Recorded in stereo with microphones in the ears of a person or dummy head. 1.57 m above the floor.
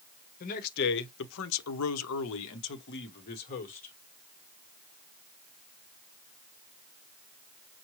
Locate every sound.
0.4 s a man speaking: 45° left (ahead or behind), 1.1 m; by 4.0 s 40° left (ahead or behind), 1.5 m